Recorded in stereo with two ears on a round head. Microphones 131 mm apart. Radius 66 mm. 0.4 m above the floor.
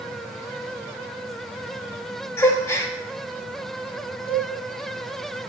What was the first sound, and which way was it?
A gasp, 20° left (ahead or behind).